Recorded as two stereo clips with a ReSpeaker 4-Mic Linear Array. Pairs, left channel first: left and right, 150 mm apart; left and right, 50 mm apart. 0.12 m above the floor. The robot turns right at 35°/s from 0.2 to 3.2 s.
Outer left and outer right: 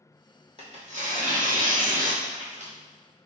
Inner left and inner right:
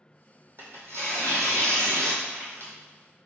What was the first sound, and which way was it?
Tearing paper, 130° right.